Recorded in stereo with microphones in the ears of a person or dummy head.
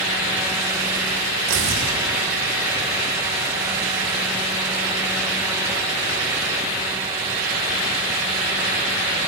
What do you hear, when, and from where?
1.5 s tearing paper: 75° right (ahead or behind), 3.5 m